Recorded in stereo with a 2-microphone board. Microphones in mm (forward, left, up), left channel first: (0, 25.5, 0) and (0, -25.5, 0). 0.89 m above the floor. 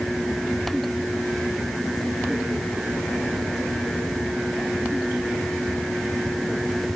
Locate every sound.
Only background noise.